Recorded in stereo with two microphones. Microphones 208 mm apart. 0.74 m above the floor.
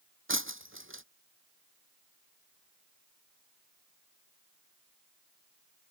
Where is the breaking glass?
75° right (ahead or behind).